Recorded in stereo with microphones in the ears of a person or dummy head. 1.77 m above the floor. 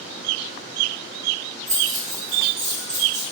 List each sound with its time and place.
1.7 s keys jangling: 50° right (ahead or behind), 1.8 m; by 3.2 s 25° right (ahead or behind), 1.3 m